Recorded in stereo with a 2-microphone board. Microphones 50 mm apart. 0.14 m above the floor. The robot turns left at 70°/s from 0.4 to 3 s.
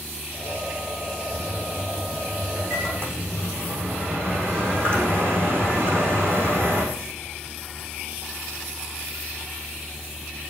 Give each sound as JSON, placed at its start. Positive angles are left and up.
{"t": 1.3, "sound": "a microwave", "azimuth_deg": -10, "distance_m": 6.0}